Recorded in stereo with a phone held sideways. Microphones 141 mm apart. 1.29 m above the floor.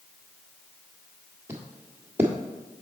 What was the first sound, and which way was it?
Footsteps, 15° right (ahead or behind).